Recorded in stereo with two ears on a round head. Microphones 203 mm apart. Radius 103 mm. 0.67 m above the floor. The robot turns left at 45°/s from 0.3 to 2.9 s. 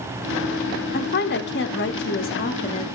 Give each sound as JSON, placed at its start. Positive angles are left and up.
{"t": 0.9, "sound": "a woman speaking", "azimuth_deg": 120, "distance_m": 0.9}